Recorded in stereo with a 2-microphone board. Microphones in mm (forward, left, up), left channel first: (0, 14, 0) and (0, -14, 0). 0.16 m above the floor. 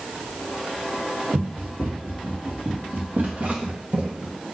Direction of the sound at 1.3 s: 80° right.